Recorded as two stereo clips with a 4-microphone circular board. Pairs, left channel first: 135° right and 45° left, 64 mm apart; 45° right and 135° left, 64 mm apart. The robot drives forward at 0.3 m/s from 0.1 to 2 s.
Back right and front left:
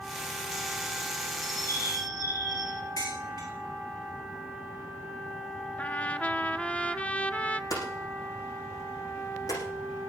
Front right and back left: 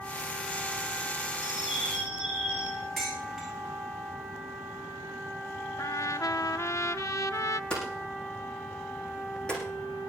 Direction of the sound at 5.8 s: 70° right.